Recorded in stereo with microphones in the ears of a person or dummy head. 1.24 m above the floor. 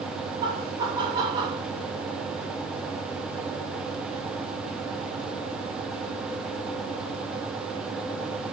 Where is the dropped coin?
I don't hear a dropped coin.